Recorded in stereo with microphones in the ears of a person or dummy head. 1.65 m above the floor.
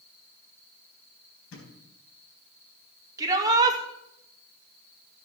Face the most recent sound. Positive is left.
turn(degrees=-20)  # may be behind; listen again after turning